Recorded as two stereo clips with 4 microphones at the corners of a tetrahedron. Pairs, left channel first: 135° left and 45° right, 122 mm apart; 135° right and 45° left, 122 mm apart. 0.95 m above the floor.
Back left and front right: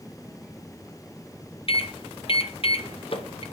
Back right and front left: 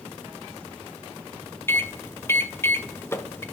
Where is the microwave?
160° left, 0.7 m.